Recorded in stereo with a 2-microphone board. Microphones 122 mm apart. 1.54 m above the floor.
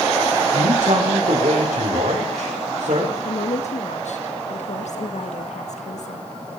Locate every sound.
0.5 s a man speaking: 65° right (ahead or behind), 5 m
3.2 s a woman speaking: 75° left (ahead or behind), 1.7 m